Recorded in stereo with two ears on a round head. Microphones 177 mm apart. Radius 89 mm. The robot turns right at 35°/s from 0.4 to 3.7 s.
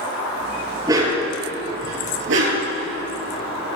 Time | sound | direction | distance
0.9 | a dog barking | 20° right (ahead or behind) | 4 m